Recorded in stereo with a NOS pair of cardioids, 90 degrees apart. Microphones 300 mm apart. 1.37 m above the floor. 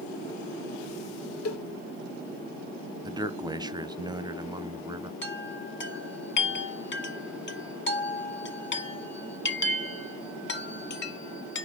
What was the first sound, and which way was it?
A cowbell, 50° left.